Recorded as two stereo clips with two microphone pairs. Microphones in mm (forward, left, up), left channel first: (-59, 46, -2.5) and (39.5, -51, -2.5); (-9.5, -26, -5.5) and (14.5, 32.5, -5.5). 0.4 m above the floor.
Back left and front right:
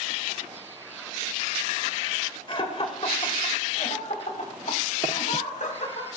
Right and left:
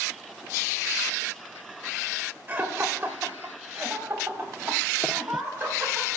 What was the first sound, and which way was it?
Laughter, 115° left.